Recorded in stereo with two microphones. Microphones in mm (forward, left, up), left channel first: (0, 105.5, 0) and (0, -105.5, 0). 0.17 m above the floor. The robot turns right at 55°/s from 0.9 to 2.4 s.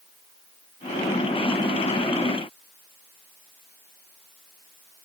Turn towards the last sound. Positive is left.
No sound to turn to.